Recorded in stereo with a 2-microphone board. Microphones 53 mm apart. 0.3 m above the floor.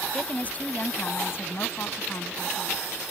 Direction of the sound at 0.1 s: 20° left (ahead or behind).